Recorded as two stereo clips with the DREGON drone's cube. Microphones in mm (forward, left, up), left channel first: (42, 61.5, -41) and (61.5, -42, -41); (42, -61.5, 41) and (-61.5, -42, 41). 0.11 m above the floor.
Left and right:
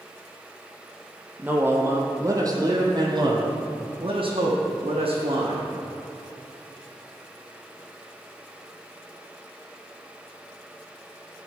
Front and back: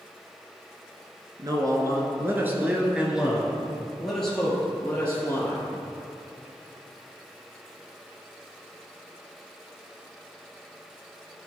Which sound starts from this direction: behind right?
A man speaking, at 1.4 s.